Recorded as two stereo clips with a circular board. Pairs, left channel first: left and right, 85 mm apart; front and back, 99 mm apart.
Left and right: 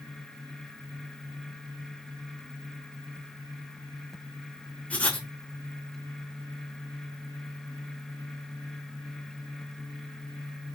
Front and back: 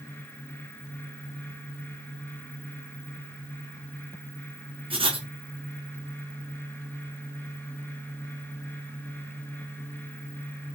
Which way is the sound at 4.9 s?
165° left.